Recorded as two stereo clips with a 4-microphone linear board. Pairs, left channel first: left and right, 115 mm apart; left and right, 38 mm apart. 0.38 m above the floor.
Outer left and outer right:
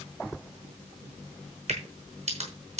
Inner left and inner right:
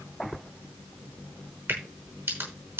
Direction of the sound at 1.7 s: 70° right (ahead or behind).